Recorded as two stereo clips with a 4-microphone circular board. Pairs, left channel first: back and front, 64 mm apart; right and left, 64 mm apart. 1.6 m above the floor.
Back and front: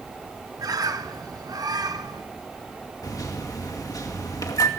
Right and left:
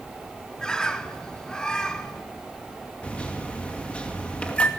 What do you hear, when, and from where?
0.6 s a bird: 10° right, 1.2 m
3.0 s a microwave: 160° right, 2.5 m